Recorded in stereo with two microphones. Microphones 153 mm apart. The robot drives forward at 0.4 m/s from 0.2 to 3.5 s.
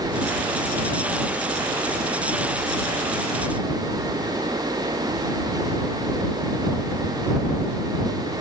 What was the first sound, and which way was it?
Only background noise.